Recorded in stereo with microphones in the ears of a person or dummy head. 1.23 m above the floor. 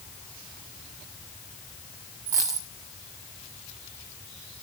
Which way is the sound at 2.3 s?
15° right (ahead or behind).